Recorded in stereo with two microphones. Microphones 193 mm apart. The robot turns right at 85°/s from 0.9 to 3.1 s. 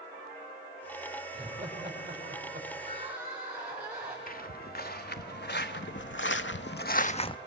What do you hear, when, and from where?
1.3 s laughter: 20° right (ahead or behind), 5.5 m; by 2.7 s 45° right (ahead or behind), 5.5 m
2.8 s crying: 35° right (ahead or behind), 5.5 m; by 4.2 s 5° right (ahead or behind), 5.5 m
4.3 s footsteps: 50° left (ahead or behind), 1.5 m; by 7.4 s 25° left (ahead or behind), 0.5 m